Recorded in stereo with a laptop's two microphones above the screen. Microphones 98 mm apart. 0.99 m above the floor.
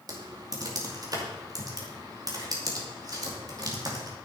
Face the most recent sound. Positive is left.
turn(degrees=-45)  # may be behind; listen again after turning